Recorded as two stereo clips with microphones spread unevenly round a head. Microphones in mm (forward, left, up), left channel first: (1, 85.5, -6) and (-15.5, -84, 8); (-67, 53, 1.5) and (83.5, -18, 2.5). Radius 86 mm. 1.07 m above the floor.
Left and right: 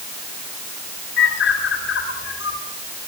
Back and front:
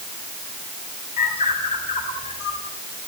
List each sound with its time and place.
1.2 s a bird: 110° left, 8 m